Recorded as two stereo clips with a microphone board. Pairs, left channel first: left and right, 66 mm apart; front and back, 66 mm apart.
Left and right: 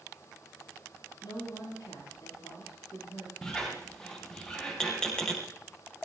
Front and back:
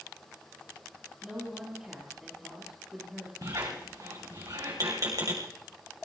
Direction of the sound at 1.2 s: 100° left.